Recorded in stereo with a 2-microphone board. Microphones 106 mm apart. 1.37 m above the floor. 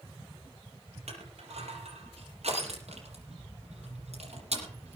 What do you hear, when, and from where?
1.1 s crushing: 80° right, 6.5 m